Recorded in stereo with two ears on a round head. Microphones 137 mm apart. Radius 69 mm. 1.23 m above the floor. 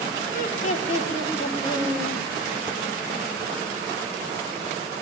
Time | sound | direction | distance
0.3 | laughter | 60° left (ahead or behind) | 2.5 m